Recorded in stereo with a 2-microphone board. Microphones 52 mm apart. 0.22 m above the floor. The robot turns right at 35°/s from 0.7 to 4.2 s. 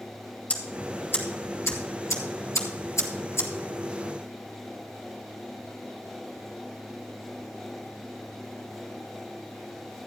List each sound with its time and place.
0.5 s ticking: 30° left (ahead or behind), 2 m; by 3.5 s 50° left (ahead or behind), 2 m